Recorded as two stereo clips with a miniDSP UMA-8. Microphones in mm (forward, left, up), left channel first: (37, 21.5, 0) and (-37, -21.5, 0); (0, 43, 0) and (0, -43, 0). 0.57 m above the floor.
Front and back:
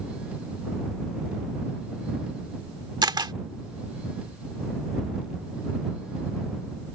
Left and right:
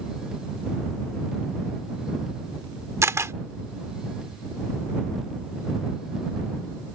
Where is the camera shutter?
140° right.